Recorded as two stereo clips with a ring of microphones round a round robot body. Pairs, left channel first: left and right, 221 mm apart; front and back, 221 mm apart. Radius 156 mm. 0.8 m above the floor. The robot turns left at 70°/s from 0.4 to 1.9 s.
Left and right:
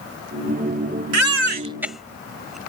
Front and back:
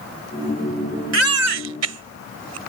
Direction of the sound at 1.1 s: 125° right.